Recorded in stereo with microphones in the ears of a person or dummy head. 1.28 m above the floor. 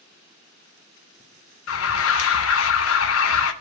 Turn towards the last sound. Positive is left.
turn(degrees=75)  # may be behind; listen again after turning